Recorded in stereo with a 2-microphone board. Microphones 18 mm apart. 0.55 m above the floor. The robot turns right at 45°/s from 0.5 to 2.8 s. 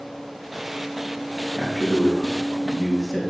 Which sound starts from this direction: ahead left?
A man speaking, at 1.6 s.